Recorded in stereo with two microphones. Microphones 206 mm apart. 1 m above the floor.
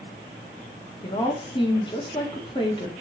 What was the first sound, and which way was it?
A woman speaking, 25° left (ahead or behind).